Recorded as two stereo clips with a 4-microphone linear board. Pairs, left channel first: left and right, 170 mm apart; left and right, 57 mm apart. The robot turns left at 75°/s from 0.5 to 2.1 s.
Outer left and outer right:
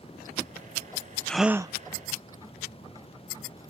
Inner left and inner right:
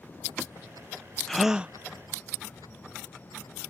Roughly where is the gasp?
Ahead.